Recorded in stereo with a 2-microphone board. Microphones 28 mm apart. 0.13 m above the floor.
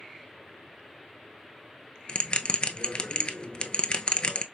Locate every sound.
2.1 s a bell: 40° left (ahead or behind), 0.5 m